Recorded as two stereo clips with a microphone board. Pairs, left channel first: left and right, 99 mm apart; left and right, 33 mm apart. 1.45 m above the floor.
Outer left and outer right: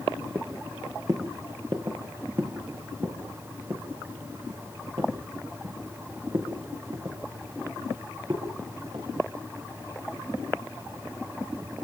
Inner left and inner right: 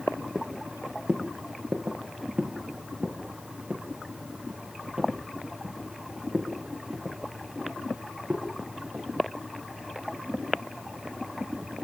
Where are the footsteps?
30° right (ahead or behind), 4.5 m; by 9.1 s 50° right (ahead or behind), 11 m.